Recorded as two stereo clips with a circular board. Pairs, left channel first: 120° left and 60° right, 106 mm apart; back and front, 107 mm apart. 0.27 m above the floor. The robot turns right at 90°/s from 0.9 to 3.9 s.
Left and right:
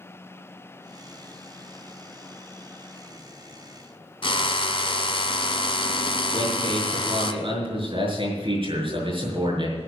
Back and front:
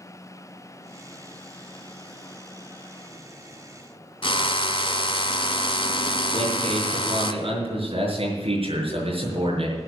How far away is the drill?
About 1.0 m.